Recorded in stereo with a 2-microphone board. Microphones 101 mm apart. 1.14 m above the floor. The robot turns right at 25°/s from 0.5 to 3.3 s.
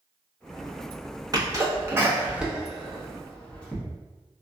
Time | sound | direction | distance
1.3 | a sneeze | 40° right (ahead or behind) | 1.0 m